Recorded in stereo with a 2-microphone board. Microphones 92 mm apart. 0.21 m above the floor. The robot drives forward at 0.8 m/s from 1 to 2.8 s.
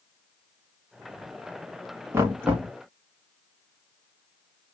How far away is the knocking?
About 1.3 m.